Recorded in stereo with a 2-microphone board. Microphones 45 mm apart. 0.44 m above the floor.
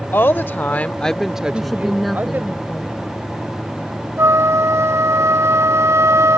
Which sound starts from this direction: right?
A flute, at 4.2 s.